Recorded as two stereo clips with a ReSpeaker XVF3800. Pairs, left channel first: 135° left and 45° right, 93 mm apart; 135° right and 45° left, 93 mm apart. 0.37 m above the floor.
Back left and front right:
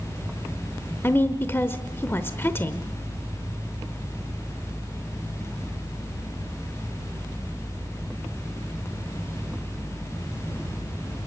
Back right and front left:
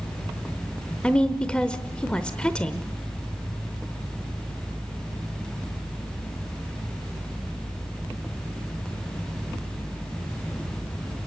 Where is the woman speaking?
160° left, 0.9 m.